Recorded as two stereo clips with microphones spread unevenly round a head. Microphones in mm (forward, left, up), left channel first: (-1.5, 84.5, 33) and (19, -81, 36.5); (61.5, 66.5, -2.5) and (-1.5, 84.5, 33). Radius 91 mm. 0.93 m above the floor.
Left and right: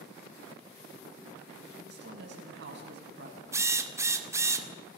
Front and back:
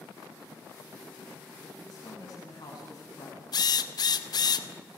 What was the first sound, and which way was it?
A woman speaking, 60° right.